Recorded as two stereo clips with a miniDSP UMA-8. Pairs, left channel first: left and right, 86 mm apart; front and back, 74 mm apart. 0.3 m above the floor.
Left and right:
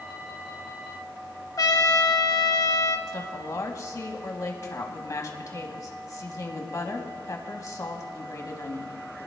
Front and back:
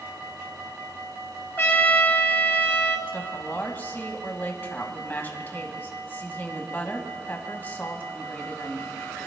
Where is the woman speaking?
55° left, 1.9 m.